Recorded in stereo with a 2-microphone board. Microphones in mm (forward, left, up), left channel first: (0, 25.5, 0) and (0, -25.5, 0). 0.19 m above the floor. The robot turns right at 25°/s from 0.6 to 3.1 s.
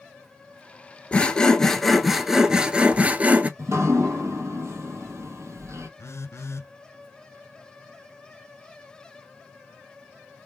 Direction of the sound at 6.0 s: 65° left (ahead or behind).